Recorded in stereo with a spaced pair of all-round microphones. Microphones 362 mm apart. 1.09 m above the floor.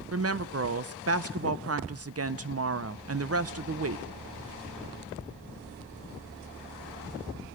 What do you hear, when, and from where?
0.1 s a woman speaking: 40° right (ahead or behind), 0.6 m